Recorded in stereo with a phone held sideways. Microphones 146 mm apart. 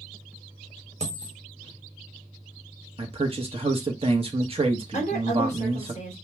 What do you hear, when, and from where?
1.0 s a dropped coin: 50° right (ahead or behind), 1.1 m
3.0 s a man speaking: 40° right (ahead or behind), 0.9 m
4.9 s a woman speaking: 50° left (ahead or behind), 2.5 m